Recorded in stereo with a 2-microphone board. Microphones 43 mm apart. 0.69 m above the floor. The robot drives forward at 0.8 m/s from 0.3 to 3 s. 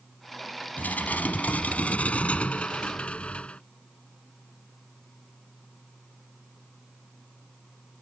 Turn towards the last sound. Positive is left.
turn(degrees=25)  # may be behind; listen again after turning